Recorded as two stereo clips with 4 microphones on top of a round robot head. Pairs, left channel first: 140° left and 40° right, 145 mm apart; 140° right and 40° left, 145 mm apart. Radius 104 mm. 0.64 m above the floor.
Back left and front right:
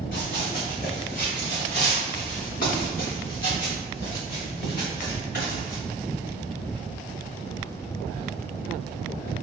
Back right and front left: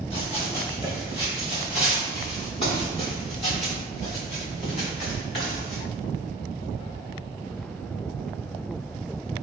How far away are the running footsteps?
About 2.5 m.